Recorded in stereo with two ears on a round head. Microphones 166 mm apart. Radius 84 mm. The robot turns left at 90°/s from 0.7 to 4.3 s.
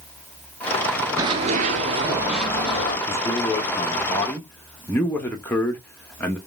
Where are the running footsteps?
20° right (ahead or behind), 0.7 m; by 3.0 s 50° left (ahead or behind), 1.8 m.